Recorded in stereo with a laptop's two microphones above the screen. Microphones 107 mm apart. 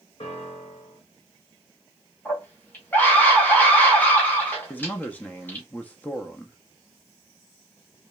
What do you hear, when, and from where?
0.2 s a piano: 60° left (ahead or behind), 1.4 m
2.2 s a scream: 15° left (ahead or behind), 1.4 m
4.7 s a man speaking: 15° left (ahead or behind), 0.6 m